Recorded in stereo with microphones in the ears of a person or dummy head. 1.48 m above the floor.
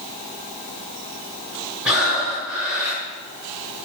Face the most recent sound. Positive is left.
turn(degrees=0)  # may be behind; listen again after turning